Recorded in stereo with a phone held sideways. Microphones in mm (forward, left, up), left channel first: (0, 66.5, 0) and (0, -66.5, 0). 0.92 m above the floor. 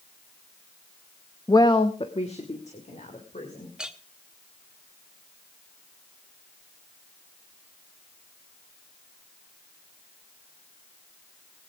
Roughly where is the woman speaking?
Left.